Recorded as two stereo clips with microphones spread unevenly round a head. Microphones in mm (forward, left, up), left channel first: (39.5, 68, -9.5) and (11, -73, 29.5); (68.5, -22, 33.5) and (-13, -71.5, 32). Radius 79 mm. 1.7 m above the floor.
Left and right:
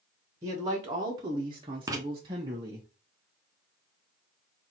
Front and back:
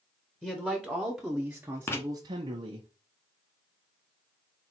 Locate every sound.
0.4 s a man speaking: 45° right, 1.4 m; by 2.9 s 155° right, 1.0 m
1.9 s writing: 35° right, 1.1 m